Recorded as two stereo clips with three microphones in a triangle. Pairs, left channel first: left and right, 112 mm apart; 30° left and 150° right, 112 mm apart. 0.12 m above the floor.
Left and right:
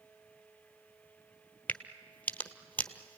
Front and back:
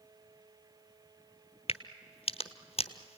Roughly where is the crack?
Ahead.